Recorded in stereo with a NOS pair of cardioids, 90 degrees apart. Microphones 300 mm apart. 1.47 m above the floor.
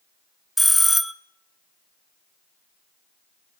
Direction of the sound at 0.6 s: Straight ahead.